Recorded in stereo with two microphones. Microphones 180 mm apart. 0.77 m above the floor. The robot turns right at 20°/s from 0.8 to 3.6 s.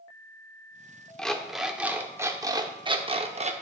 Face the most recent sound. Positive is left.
turn(degrees=-135)